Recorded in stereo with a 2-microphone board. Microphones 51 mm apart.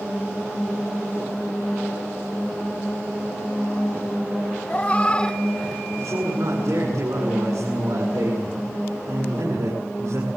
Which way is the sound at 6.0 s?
85° right.